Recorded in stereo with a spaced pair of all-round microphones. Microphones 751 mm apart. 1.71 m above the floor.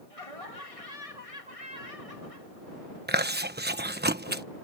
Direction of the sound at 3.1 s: 15° right (ahead or behind).